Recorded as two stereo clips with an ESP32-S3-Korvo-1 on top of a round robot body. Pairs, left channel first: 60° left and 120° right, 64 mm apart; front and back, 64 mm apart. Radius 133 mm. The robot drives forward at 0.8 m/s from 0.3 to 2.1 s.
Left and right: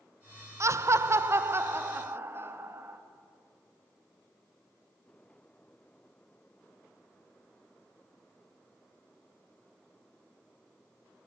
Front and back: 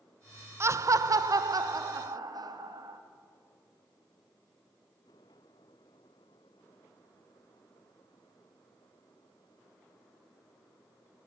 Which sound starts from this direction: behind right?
Laughter, at 0.6 s.